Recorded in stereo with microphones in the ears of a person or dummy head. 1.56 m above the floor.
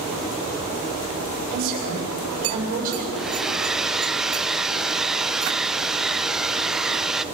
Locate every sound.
1.5 s a woman speaking: 50° right (ahead or behind), 7.5 m
3.2 s a hair dryer: 5° right (ahead or behind), 0.6 m